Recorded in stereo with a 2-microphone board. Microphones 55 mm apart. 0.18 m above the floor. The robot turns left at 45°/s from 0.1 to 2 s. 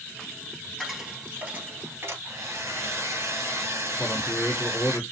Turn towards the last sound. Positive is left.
turn(degrees=35)  # may be behind; listen again after turning